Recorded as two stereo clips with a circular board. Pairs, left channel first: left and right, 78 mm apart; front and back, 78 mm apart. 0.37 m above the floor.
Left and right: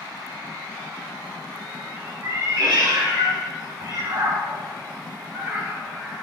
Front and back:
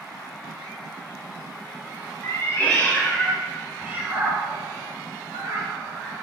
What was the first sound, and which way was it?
A cat meowing, 50° right.